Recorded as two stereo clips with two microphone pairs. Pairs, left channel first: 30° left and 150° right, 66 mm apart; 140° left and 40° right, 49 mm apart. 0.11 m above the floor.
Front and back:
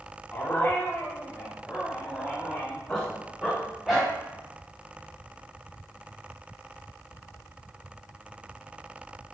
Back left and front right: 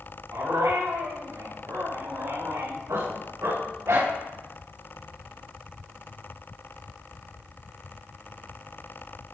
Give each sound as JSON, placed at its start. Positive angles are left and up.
{"t": 0.3, "sound": "a dog barking", "azimuth_deg": -35, "distance_m": 7.5}